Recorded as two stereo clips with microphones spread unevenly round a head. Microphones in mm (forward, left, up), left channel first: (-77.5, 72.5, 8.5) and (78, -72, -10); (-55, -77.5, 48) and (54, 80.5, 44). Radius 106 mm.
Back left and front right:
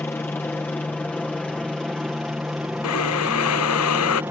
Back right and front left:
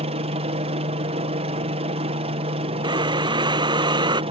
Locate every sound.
0.0 s a helicopter: 60° left; by 4.3 s 30° left
2.8 s breathing: 125° left